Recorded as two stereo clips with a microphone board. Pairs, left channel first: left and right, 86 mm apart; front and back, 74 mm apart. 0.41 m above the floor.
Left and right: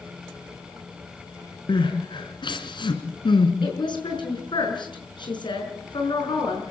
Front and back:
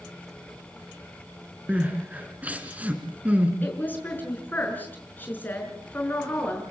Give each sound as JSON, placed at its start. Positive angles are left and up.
{"t": 1.7, "sound": "crying", "azimuth_deg": 110, "distance_m": 2.5}
{"t": 3.6, "sound": "a woman speaking", "azimuth_deg": 65, "distance_m": 6.0}